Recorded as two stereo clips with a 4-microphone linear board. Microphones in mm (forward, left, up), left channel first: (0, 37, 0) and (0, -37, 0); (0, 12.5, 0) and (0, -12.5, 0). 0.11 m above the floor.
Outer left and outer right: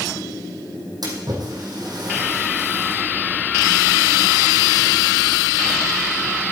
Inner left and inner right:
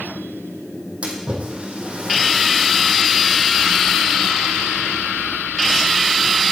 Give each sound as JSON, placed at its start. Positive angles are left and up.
{"t": 1.0, "sound": "a splash", "side_deg": -65, "distance_m": 3.0}